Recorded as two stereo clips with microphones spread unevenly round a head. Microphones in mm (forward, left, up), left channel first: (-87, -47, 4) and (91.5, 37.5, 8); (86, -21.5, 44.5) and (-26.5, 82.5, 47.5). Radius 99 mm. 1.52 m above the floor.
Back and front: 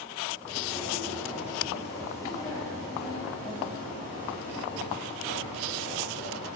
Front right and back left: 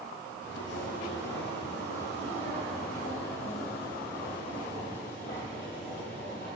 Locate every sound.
0.4 s footsteps: 70° right, 3.5 m; by 6.5 s 90° right, 7 m